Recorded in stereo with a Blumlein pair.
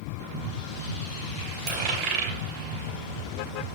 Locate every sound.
1.7 s a dropped coin: 40° right, 3 m